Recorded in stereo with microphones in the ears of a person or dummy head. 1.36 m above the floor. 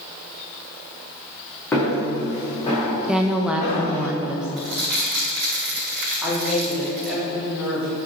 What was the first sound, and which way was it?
Footsteps, 15° left (ahead or behind).